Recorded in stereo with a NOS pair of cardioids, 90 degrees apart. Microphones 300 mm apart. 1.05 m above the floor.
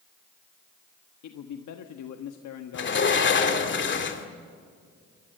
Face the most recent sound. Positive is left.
turn(degrees=40)